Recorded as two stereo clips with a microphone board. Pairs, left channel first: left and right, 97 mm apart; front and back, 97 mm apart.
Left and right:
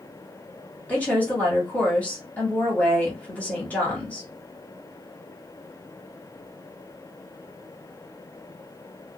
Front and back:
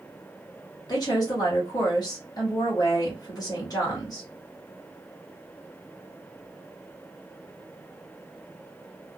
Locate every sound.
0.9 s a woman speaking: 20° left, 1.4 m